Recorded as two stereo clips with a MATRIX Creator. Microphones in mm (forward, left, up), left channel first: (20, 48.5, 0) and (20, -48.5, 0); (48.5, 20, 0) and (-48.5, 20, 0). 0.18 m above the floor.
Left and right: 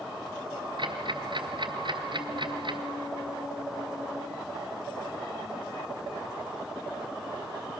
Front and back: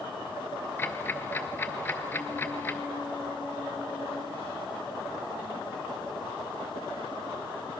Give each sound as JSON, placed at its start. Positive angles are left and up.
{"t": 0.8, "sound": "ticking", "azimuth_deg": -65, "distance_m": 1.7}